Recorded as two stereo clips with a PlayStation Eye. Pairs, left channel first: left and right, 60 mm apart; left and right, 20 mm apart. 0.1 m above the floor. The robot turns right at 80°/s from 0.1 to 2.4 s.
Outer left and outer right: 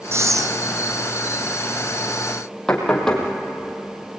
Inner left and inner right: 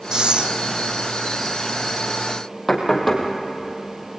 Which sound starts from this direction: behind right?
Breathing, at 0.1 s.